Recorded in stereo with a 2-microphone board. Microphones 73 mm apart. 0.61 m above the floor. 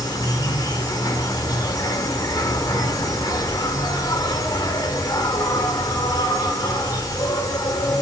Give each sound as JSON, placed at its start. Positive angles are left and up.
{"t": 0.0, "sound": "an insect", "side_deg": 65, "distance_m": 1.8}